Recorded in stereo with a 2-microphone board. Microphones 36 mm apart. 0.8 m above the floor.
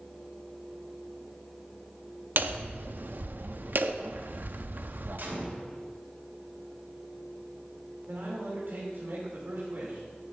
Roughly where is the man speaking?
Right.